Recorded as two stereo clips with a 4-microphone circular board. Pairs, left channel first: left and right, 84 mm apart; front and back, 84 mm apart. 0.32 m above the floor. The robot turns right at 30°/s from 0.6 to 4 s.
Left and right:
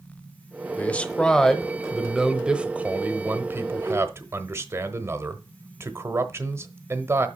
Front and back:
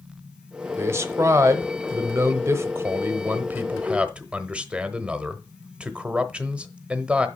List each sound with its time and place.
0.8 s a man speaking: 150° left, 1.0 m; by 7.3 s 115° right, 1.0 m